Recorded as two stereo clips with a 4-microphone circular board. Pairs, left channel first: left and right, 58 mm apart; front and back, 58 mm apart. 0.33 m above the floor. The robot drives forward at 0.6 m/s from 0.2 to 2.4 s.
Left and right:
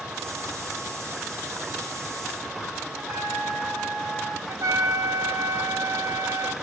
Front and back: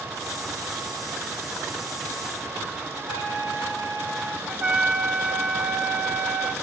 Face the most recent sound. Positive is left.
turn(degrees=-110)